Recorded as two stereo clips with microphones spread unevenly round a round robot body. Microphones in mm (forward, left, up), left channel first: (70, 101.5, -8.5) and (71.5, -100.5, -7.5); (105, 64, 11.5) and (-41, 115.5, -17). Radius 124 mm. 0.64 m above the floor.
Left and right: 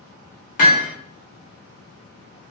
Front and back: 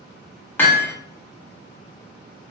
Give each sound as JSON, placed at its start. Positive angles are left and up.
{"t": 0.6, "sound": "hammering", "azimuth_deg": 65, "distance_m": 1.0}